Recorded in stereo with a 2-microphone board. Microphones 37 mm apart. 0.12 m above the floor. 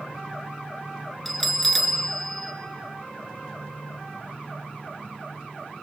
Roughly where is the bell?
Centre.